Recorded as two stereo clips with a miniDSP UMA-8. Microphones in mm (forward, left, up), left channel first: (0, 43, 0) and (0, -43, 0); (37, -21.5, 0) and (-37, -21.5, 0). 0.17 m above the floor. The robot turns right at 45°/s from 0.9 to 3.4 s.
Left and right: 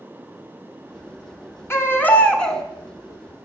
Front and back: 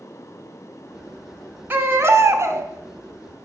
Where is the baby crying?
130° left, 1.1 m; by 2.6 s 175° left, 1.1 m.